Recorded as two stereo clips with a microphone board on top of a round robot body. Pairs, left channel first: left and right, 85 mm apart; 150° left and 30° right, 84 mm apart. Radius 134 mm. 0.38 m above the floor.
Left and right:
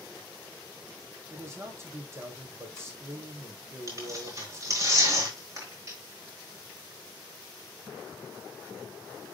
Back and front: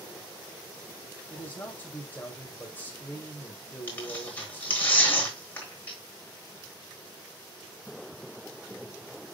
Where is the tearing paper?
140° right, 4.5 m.